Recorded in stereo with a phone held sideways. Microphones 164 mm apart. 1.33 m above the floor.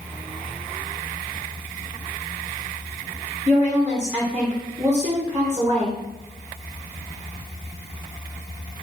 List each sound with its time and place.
3.5 s a woman speaking: 10° right (ahead or behind), 0.9 m